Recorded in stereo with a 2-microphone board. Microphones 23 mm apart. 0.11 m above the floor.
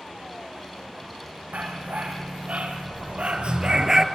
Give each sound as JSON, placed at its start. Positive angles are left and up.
{"t": 1.5, "sound": "a dog barking", "side_deg": -75, "distance_m": 2.0}